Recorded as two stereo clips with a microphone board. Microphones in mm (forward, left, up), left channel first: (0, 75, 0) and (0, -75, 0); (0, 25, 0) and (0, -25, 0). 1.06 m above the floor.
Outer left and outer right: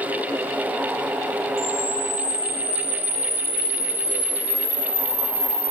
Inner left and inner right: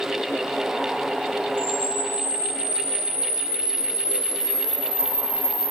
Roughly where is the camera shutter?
Left.